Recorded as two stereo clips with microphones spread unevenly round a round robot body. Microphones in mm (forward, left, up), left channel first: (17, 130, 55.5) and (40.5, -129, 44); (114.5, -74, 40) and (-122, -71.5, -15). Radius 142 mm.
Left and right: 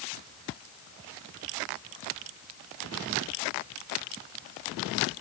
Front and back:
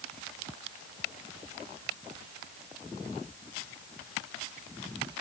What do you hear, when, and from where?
Only background noise.